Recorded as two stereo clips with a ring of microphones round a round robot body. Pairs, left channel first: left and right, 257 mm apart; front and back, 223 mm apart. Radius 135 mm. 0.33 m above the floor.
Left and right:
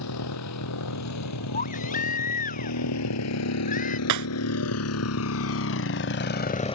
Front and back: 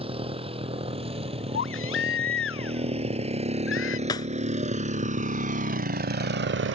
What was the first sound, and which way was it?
A motorcycle, 115° left.